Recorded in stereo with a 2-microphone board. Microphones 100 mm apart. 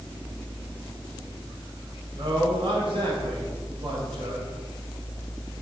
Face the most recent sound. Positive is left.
turn(degrees=-60)  # may be behind; listen again after turning